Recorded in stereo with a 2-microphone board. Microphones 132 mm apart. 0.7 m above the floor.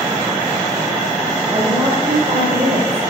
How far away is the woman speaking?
About 3.5 m.